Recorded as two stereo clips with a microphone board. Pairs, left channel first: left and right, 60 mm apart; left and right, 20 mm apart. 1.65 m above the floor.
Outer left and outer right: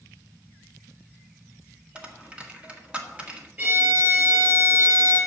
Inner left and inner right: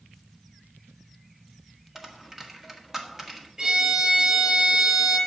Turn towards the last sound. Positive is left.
turn(degrees=-30)  # may be behind; listen again after turning